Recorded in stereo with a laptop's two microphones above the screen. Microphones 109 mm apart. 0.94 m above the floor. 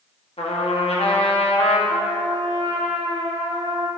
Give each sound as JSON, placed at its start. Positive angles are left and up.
{"t": 0.4, "sound": "a trumpet", "side_deg": 65, "distance_m": 1.1}
{"t": 1.9, "sound": "a trumpet", "side_deg": -55, "distance_m": 1.1}